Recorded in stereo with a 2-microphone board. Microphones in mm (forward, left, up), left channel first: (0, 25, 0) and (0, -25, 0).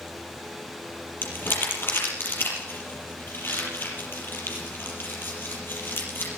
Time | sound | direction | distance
1.2 | crumpling | 45° left (ahead or behind) | 5.5 m